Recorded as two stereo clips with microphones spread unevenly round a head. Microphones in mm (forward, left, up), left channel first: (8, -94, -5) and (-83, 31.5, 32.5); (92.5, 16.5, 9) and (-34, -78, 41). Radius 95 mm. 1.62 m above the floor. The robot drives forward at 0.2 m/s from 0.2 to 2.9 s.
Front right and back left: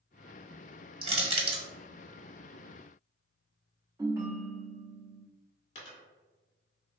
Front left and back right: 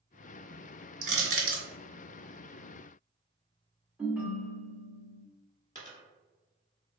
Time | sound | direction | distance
1.0 | crushing | straight behind | 1.3 m
4.0 | a ringtone | 155° left | 0.7 m
5.8 | a dropped coin | 10° right | 1.2 m